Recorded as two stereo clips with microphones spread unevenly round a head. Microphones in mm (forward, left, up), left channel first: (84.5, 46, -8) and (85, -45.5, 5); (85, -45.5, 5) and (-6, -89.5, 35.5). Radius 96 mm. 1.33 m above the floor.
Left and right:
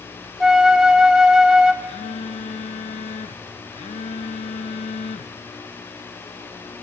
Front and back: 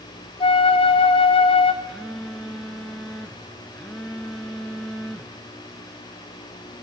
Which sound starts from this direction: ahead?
A flute, at 0.4 s.